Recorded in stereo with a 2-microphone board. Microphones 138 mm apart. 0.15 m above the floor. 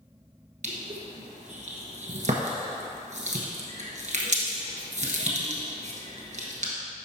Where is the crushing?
60° right (ahead or behind), 1.2 m.